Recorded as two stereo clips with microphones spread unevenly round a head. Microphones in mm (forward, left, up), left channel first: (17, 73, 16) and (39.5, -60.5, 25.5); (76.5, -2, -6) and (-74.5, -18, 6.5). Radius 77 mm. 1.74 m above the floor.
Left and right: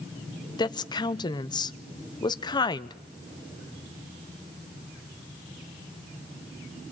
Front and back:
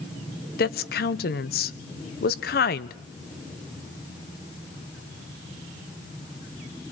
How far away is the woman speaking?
About 1.0 m.